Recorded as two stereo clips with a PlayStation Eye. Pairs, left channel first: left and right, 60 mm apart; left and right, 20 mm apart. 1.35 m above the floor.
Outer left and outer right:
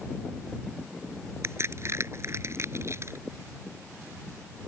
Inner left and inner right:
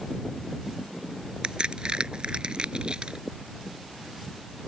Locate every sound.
1.4 s a crack: 50° right (ahead or behind)